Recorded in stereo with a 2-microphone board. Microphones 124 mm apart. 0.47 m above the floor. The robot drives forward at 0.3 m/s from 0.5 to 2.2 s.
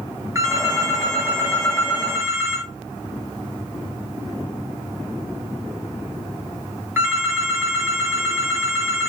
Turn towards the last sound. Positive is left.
turn(degrees=-20)  # may be behind; listen again after turning